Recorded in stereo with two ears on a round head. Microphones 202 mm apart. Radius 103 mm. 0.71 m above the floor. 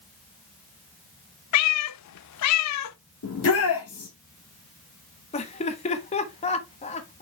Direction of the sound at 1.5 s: 75° left (ahead or behind).